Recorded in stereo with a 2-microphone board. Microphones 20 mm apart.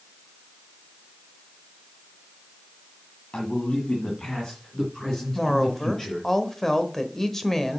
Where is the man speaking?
55° left (ahead or behind), 2 m; by 6.3 s 10° left (ahead or behind), 4.5 m.